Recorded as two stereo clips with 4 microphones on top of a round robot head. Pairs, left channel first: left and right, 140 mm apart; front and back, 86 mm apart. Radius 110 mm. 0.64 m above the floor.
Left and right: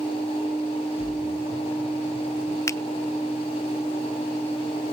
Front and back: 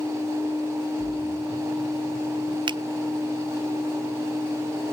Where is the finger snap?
160° left, 0.6 m.